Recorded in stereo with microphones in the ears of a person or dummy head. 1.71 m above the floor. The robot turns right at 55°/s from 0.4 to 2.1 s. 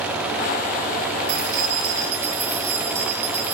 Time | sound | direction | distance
1.3 | keys jangling | 55° right | 5 m